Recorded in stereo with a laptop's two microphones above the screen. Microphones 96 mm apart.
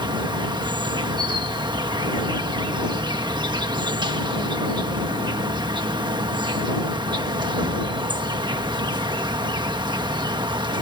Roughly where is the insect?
Right.